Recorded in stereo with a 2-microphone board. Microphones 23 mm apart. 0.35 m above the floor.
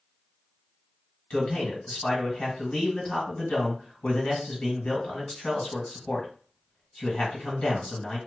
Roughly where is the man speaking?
Left.